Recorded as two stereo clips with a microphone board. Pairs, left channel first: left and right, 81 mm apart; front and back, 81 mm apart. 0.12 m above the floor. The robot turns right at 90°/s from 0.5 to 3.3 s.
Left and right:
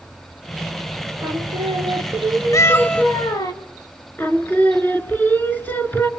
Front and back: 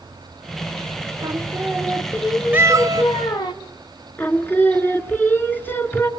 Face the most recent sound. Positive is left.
turn(degrees=45)